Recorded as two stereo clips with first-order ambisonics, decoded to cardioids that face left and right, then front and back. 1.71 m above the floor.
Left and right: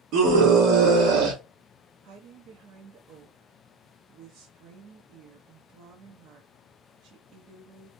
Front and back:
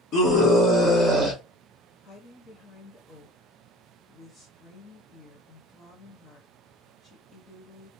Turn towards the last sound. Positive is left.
turn(degrees=-55)